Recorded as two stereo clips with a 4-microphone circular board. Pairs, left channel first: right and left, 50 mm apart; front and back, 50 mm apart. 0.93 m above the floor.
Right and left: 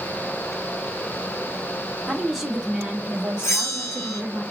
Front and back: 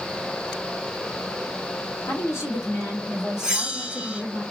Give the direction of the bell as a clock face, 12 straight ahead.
4 o'clock.